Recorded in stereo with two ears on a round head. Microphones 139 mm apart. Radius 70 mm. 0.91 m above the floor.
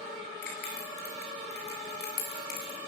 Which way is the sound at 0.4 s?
65° left (ahead or behind).